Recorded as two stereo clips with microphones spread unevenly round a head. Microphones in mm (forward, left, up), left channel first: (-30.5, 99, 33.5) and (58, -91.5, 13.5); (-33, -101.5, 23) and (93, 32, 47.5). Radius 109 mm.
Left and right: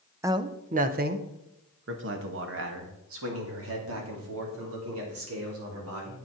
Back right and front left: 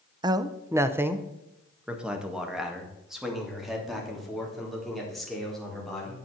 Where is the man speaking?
15° right, 0.7 m; by 6.2 s 45° right, 4.5 m.